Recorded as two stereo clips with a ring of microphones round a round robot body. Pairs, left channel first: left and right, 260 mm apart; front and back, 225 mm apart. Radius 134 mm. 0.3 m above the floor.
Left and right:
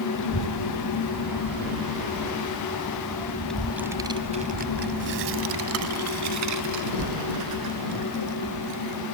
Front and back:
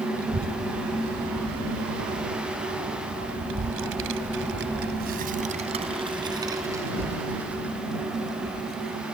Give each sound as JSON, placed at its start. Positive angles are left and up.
{"t": 0.1, "sound": "a child speaking", "azimuth_deg": 130}